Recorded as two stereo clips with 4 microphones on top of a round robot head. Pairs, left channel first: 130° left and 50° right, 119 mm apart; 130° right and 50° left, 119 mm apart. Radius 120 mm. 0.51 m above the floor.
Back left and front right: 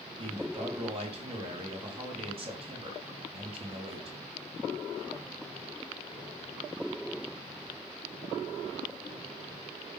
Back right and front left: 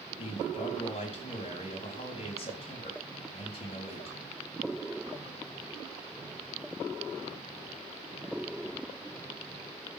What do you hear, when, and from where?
0.2 s a man speaking: 90° right, 3.5 m